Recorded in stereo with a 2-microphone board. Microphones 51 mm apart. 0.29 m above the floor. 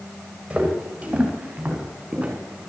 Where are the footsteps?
20° right (ahead or behind), 5 m; by 2.4 s 25° right (ahead or behind), 6 m.